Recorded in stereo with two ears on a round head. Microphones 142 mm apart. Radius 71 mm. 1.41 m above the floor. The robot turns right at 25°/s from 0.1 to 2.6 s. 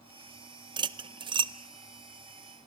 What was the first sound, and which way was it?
Cutlery clinking, 30° right (ahead or behind).